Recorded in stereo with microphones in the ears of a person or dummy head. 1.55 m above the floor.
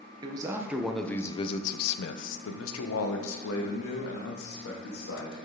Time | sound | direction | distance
0.2 | a man speaking | 25° right (ahead or behind) | 1.1 m